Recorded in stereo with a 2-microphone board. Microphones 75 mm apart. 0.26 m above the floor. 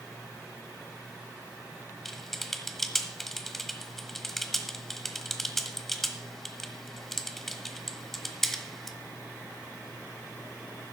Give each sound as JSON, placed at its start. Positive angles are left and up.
{"t": 2.0, "sound": "typing on a keyboard", "side_deg": 5, "distance_m": 1.2}